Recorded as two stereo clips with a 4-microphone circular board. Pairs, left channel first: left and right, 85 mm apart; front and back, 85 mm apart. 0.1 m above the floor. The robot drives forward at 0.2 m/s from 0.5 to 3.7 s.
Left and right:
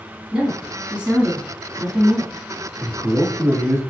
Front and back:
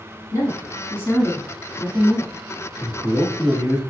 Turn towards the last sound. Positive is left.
turn(degrees=-120)